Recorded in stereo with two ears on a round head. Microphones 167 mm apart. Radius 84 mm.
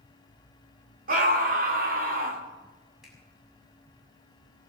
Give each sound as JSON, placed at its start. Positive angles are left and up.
{"t": 1.1, "sound": "a scream", "side_deg": -50, "distance_m": 2.5}
{"t": 3.0, "sound": "a finger snap", "side_deg": 0, "distance_m": 6.5}